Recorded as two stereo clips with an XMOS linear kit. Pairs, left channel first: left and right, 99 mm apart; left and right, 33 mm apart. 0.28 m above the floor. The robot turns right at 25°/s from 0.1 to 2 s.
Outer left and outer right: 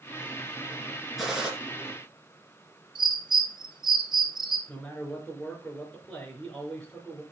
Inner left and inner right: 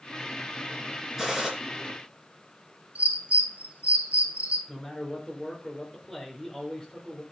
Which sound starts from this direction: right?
A bird, at 3.0 s.